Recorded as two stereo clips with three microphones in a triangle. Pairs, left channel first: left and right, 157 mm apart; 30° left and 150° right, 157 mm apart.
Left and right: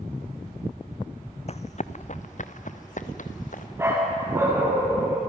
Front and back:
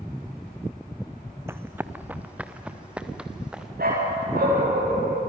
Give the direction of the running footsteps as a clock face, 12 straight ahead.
7 o'clock.